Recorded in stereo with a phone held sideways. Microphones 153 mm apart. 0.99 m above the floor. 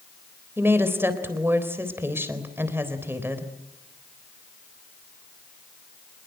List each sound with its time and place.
0.6 s a woman speaking: 15° right (ahead or behind), 4 m